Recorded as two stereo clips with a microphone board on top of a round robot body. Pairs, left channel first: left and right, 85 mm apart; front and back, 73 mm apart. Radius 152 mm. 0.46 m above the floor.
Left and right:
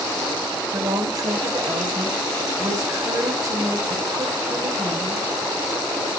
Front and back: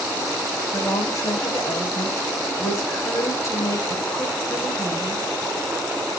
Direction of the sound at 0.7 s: 45° right.